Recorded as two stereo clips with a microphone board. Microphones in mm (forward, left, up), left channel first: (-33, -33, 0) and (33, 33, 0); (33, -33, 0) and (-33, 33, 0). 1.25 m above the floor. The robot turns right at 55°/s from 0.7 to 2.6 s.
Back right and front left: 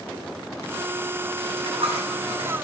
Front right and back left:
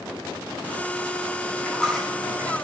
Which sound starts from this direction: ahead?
A dropped coin, at 1.5 s.